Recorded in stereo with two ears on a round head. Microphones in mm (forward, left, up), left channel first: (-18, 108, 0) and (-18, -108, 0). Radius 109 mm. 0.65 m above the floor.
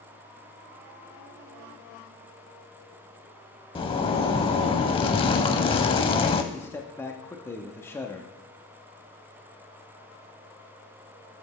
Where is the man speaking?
10° left (ahead or behind), 0.7 m.